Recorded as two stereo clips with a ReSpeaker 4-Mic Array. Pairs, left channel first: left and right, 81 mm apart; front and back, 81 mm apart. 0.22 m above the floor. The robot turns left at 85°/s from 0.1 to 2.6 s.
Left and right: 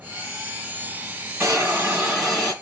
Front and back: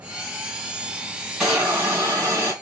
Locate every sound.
1.4 s a hiss: 105° right, 1.6 m; by 2.5 s 155° left, 1.6 m